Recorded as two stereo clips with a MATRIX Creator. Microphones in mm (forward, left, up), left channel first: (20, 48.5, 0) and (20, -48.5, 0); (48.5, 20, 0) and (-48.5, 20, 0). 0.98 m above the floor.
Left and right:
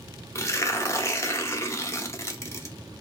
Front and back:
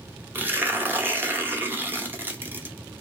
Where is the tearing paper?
125° left, 0.6 m.